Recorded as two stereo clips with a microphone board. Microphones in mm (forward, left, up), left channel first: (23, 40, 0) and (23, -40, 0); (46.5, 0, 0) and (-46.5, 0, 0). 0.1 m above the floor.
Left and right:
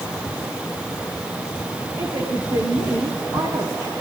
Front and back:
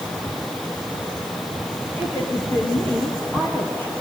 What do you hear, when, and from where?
2.0 s a woman speaking: 70° right, 6 m